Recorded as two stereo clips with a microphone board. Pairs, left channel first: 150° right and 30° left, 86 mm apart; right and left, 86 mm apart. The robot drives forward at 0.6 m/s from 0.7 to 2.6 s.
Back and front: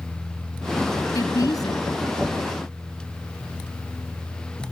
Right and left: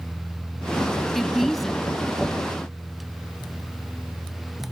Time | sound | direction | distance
1.1 | a woman speaking | 175° right | ?